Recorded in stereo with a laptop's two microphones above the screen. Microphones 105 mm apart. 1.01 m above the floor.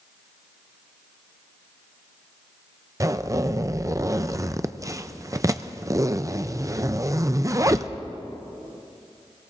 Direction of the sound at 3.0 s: 30° right (ahead or behind).